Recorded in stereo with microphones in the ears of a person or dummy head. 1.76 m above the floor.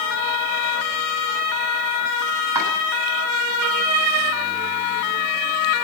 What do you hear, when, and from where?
2.5 s chopping: 20° right (ahead or behind), 9.5 m